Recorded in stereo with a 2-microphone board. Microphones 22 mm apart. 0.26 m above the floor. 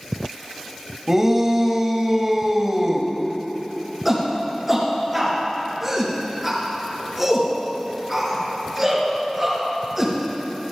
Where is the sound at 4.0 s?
10° right (ahead or behind), 4.5 m.